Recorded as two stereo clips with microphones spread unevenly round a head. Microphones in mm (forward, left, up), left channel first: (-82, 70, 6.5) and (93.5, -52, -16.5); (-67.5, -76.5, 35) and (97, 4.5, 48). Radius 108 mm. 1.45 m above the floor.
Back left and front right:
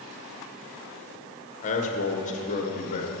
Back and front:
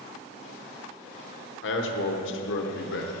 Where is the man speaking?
155° right, 1.0 m.